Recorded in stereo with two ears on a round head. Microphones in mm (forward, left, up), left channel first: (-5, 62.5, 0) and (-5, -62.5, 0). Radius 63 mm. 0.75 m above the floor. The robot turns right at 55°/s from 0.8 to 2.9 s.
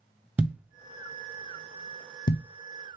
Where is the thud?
10° right (ahead or behind), 0.5 m; by 2.4 s 80° left, 0.5 m.